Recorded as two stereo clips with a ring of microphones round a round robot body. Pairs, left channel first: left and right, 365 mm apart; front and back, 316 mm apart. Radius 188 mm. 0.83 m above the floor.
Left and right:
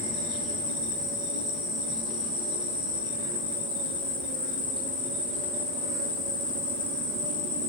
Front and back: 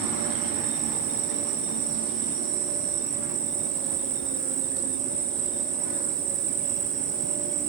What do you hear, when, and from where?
0.0 s an insect: 170° right, 2 m